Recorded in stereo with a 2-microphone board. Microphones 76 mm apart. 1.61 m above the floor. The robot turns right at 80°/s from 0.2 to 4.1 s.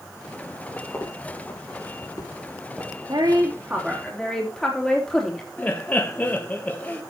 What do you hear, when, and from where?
0.9 s footsteps: 25° left (ahead or behind), 4 m; by 3.0 s 20° right (ahead or behind), 2.5 m
3.1 s a woman speaking: 70° right, 3 m; by 5.5 s 10° left, 3 m
5.6 s laughter: 20° left (ahead or behind), 1.0 m